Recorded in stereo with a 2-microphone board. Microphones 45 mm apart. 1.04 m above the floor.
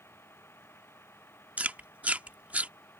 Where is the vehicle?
60° left (ahead or behind); by 3.0 s 55° left (ahead or behind).